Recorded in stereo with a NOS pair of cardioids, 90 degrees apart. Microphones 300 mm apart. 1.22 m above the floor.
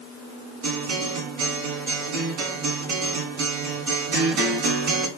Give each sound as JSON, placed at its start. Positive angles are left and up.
{"t": 0.6, "sound": "a guitar", "azimuth_deg": -70, "distance_m": 1.8}